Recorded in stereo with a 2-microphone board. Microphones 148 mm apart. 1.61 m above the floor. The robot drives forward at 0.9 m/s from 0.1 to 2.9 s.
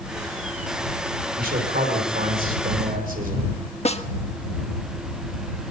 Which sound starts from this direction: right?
A man speaking, at 1.4 s.